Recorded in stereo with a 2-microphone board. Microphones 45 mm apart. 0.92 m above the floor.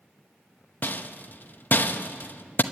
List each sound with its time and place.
0.8 s a rattle: 50° left (ahead or behind), 0.8 m